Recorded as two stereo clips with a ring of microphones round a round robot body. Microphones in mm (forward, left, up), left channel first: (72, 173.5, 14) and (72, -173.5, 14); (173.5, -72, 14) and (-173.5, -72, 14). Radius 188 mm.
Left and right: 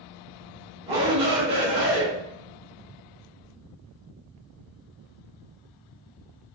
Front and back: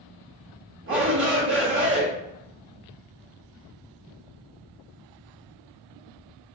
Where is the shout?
155° right, 1.2 m.